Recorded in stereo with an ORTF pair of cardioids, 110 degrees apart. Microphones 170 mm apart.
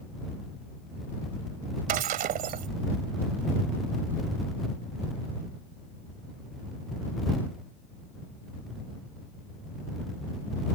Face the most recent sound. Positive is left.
turn(degrees=-65)